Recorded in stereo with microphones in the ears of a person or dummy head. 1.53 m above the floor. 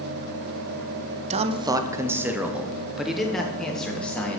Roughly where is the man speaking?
Right.